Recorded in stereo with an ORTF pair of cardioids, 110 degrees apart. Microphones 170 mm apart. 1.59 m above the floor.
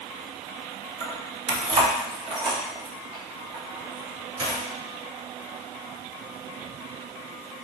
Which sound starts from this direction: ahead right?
Keys jangling, at 1.0 s.